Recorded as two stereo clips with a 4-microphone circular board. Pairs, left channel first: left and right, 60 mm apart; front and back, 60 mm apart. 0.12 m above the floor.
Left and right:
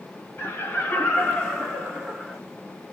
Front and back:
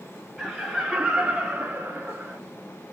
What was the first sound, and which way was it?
Laughter, 85° left.